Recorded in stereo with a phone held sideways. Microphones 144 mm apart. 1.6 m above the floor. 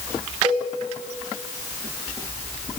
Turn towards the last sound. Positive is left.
turn(degrees=-35)  # may be behind; listen again after turning